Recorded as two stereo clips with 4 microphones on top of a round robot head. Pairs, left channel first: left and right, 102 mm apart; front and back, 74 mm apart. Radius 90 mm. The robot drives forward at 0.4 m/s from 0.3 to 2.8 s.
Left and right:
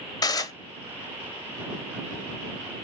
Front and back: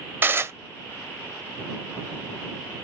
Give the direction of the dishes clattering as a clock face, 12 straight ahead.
8 o'clock.